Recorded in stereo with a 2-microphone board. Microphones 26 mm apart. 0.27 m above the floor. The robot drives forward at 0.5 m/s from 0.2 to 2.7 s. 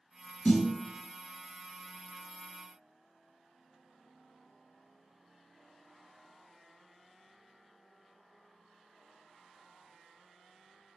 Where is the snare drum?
45° left (ahead or behind), 0.9 m; by 0.7 s 40° left (ahead or behind), 0.9 m.